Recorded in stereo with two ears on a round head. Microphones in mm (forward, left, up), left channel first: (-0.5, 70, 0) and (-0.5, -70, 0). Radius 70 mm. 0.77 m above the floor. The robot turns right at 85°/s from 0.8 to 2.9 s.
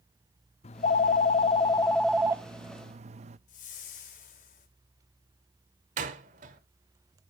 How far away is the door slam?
About 1.9 m.